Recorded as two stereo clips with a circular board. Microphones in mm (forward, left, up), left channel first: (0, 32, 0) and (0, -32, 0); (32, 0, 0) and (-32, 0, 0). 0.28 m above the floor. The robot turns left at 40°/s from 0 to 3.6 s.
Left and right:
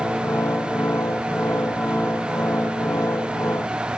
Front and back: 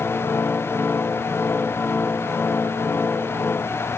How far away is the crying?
No crying in this recording.